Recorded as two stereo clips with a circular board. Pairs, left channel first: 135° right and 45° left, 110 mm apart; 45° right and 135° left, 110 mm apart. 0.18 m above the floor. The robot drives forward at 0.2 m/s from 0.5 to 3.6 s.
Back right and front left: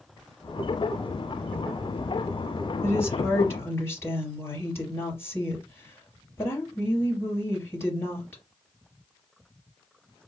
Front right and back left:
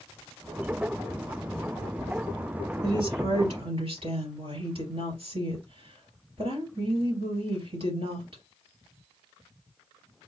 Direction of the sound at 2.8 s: 160° left.